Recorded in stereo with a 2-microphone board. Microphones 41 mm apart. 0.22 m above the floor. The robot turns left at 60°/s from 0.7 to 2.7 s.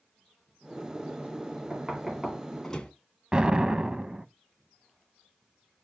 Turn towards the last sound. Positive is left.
turn(degrees=-25)  # may be behind; listen again after turning